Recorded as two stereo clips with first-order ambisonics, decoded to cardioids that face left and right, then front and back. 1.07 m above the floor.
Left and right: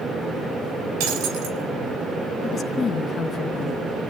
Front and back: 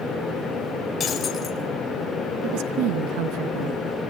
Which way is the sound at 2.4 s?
160° left.